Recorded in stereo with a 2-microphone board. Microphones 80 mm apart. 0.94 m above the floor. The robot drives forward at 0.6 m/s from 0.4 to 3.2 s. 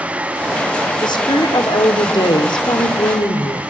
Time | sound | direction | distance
1.0 | a woman speaking | 75° left (ahead or behind) | 2.5 m